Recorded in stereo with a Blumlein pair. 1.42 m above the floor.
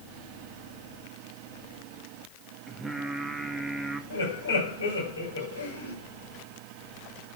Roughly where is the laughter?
Ahead left.